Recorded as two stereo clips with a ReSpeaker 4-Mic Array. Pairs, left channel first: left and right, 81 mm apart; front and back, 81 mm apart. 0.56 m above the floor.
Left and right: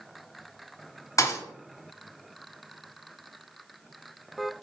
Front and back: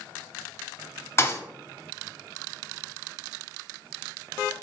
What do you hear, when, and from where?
1.2 s a thud: 55° left, 0.5 m